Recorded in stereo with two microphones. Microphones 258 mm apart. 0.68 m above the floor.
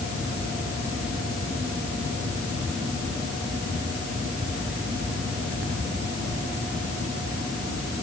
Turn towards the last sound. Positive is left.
No sound to turn to.